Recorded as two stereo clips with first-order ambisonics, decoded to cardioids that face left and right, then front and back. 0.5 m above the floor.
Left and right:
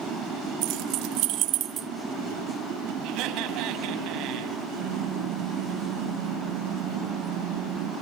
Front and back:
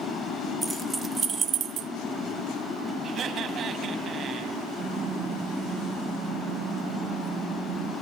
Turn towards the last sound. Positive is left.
turn(degrees=-125)